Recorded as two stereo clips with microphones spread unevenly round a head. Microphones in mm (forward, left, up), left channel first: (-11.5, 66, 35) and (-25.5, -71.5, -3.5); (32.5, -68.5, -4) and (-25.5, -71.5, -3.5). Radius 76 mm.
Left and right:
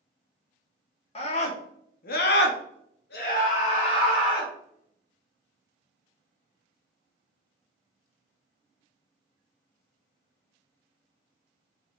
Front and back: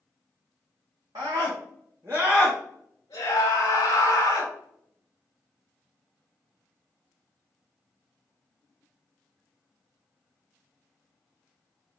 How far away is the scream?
About 1.3 m.